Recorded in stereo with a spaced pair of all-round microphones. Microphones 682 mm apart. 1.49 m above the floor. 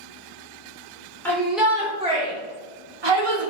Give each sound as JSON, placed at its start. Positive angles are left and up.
{"t": 1.2, "sound": "a shout", "side_deg": 5, "distance_m": 1.9}